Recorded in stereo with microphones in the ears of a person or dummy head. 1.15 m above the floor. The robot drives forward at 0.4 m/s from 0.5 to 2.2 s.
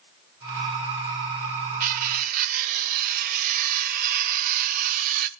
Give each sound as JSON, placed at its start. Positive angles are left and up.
{"t": 1.8, "sound": "cutlery clinking", "side_deg": -50, "distance_m": 1.2}